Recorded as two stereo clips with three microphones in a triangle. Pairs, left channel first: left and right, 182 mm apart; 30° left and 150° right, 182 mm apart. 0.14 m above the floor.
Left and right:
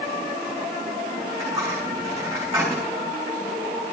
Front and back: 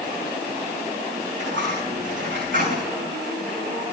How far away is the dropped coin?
About 6 m.